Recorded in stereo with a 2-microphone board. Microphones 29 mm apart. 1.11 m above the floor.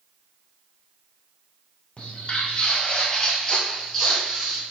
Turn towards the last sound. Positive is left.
turn(degrees=-5)  # may be behind; listen again after turning